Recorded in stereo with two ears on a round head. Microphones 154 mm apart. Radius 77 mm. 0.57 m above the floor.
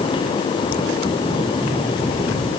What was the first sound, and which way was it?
Only background noise.